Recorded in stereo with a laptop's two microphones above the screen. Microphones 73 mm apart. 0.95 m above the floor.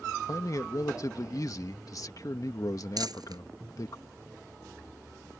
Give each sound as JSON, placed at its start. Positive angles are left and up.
{"t": 0.3, "sound": "a man speaking", "side_deg": 55}
{"t": 3.0, "sound": "crumpling", "side_deg": -65}